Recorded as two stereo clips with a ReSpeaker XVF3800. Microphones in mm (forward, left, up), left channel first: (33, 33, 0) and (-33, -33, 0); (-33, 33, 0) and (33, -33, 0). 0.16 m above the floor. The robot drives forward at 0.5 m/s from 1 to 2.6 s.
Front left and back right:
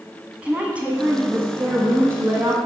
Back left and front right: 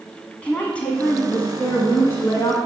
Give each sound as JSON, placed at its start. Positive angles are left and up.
{"t": 0.4, "sound": "a woman speaking", "azimuth_deg": 180, "distance_m": 1.2}